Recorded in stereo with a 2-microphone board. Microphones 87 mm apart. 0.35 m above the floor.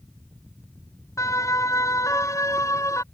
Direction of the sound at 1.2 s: 40° left (ahead or behind).